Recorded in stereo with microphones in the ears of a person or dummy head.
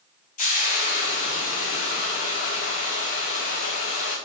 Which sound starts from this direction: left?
Frying, at 0.4 s.